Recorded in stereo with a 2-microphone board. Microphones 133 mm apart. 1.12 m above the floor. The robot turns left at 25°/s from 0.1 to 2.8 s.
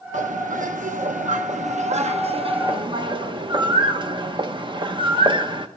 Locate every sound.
0.1 s a bird: 70° right (ahead or behind), 0.9 m; by 5.7 s 35° right (ahead or behind), 0.9 m